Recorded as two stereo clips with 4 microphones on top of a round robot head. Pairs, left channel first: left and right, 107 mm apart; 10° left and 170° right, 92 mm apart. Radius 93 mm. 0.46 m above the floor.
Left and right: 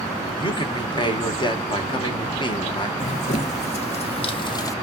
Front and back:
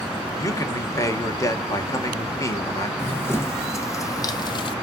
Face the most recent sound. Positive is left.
turn(degrees=30)